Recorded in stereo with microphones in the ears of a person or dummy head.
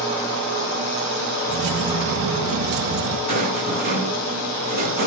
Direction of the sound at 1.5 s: 65° right (ahead or behind).